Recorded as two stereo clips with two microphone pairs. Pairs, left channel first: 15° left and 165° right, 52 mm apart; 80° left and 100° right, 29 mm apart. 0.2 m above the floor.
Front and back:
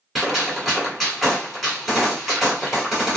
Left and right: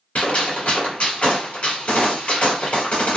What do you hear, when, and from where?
0.1 s a gunshot: 110° left, 1.5 m